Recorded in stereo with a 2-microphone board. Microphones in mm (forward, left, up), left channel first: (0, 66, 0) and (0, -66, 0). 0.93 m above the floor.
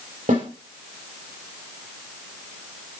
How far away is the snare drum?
About 4 m.